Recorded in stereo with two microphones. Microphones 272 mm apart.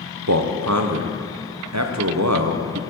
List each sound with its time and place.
0.3 s a man speaking: 70° right (ahead or behind), 0.8 m